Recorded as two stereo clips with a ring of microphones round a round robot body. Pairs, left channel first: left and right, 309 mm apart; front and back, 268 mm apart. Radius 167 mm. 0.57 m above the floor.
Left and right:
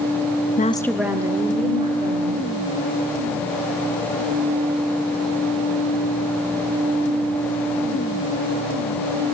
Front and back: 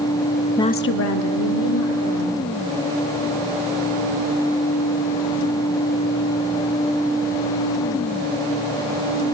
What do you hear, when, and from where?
0.6 s a woman speaking: 70° left, 0.6 m; by 2.4 s 20° right, 3 m